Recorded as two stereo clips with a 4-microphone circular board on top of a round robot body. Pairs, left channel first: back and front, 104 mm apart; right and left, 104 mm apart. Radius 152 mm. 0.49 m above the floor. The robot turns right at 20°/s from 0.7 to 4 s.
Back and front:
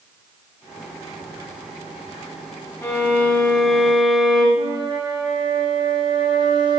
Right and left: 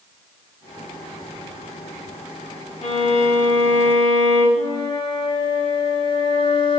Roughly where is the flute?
Ahead right.